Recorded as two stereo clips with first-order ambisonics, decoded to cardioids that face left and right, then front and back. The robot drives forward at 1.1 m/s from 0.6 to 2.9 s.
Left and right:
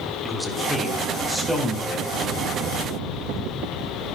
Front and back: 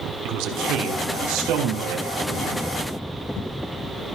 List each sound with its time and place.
0.2 s a man speaking: 175° right, 2.5 m